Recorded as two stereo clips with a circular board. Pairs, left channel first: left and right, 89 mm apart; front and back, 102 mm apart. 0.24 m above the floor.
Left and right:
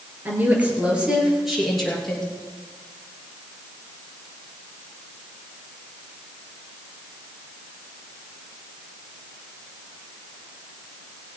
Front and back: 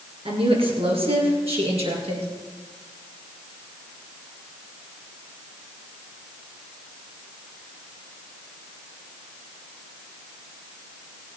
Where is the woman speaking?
155° right, 3.5 m; by 2.3 s 175° left, 4.5 m.